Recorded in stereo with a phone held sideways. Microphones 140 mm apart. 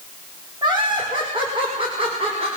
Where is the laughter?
30° right (ahead or behind), 5.5 m; by 2.5 s 45° right (ahead or behind), 5.5 m.